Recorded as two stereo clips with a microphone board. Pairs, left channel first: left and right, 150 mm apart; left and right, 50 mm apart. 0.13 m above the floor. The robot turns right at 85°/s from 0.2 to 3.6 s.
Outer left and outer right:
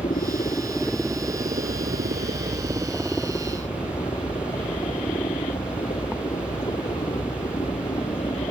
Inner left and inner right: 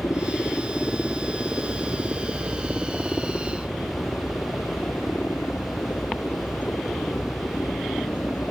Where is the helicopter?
115° left; by 8.5 s 45° left.